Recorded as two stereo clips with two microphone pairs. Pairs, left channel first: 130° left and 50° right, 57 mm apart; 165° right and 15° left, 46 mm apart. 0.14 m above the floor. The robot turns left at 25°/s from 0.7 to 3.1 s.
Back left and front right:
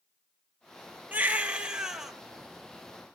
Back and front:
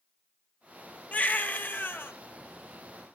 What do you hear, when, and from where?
1.1 s a baby crying: 110° right, 1.4 m; by 2.1 s 135° right, 1.4 m